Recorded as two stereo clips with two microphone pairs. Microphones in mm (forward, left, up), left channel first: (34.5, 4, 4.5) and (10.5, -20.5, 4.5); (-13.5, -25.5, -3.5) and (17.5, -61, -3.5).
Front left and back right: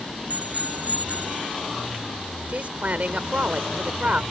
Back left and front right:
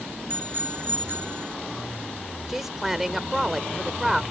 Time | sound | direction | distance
0.3 | a bicycle bell | 95° right | ?
2.5 | a woman speaking | 130° right | ?